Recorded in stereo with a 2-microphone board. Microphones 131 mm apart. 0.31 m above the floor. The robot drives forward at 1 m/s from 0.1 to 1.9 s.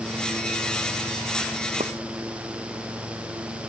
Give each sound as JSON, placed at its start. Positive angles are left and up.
{"t": 1.8, "sound": "a pop", "side_deg": -60}